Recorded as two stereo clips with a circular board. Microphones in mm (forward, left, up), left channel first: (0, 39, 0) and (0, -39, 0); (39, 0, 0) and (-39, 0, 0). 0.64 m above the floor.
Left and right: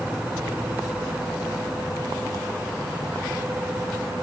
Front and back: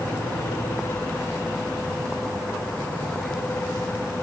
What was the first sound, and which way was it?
Only background noise.